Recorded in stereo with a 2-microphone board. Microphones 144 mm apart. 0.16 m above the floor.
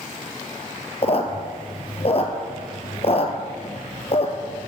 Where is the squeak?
45° left (ahead or behind), 1.0 m.